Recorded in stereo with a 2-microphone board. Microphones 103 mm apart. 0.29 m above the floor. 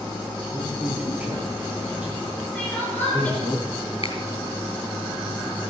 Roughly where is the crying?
Centre.